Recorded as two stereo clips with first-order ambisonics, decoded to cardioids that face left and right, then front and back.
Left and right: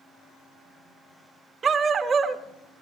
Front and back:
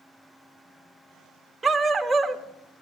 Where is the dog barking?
115° right, 0.7 m.